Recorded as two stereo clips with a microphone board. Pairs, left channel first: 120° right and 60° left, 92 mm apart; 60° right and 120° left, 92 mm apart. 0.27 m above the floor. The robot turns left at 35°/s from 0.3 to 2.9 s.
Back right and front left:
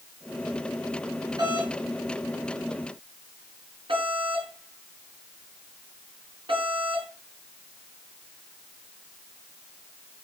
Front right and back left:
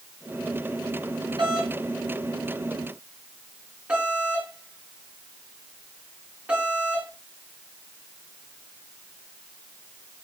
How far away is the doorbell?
About 4 m.